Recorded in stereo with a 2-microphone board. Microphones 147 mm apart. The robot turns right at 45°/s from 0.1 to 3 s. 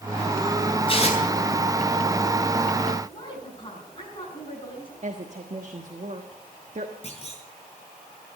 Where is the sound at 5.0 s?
50° right (ahead or behind), 1.4 m.